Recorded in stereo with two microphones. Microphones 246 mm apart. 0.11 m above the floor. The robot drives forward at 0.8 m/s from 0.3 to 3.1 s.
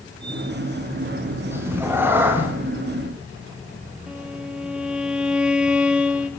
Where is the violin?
5° right (ahead or behind), 2 m.